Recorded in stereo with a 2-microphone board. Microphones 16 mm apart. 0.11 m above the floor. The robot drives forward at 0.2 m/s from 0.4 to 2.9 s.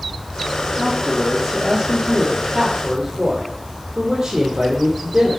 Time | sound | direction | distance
0.8 | a man speaking | 70° right (ahead or behind) | 3 m